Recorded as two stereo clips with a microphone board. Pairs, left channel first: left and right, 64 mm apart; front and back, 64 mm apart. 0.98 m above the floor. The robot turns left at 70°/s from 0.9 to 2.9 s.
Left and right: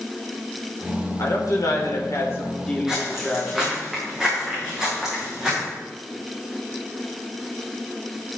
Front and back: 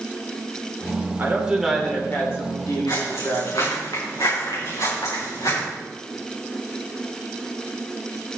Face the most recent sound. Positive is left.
turn(degrees=-10)